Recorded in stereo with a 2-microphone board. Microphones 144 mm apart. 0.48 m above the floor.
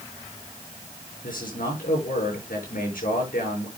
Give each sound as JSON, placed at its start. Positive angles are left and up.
{"t": 1.2, "sound": "a man speaking", "side_deg": 85, "distance_m": 7.0}